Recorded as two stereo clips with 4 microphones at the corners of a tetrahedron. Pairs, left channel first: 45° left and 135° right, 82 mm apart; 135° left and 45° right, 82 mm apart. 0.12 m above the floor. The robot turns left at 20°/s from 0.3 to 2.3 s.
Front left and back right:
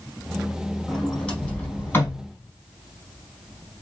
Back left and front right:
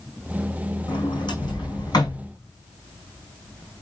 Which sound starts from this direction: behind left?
A sliding door, at 0.9 s.